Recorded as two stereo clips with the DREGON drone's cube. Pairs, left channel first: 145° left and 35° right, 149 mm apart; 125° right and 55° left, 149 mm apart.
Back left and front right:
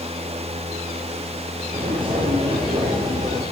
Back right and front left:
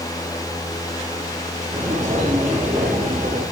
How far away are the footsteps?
About 10 m.